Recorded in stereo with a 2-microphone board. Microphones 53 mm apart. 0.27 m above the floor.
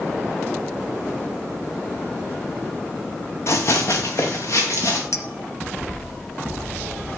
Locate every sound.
3.5 s running footsteps: 60° left (ahead or behind), 1.3 m; by 5.0 s 65° left (ahead or behind), 3.5 m
5.1 s a clink: 70° left (ahead or behind), 1.6 m